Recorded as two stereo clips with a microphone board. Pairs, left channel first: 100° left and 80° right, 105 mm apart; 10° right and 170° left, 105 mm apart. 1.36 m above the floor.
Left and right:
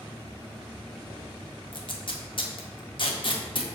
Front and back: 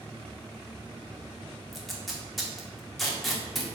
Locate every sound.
1.7 s tape being pulled: 80° left, 0.5 m